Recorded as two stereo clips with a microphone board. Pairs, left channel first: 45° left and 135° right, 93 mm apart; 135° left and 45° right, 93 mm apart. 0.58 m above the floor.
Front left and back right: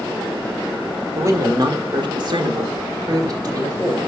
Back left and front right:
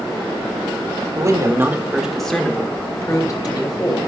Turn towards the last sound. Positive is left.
turn(degrees=175)